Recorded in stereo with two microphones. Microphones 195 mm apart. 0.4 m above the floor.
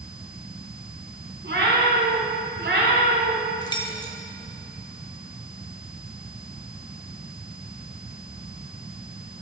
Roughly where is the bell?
No bell in this recording.